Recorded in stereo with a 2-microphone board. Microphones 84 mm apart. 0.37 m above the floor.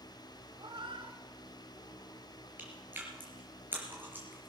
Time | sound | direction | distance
0.6 | a cat meowing | 75° right (ahead or behind) | 1.0 m
2.6 | chewing | 20° right (ahead or behind) | 4 m